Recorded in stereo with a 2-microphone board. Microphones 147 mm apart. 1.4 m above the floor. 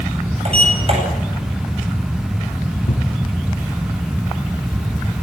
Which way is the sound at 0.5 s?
45° right (ahead or behind).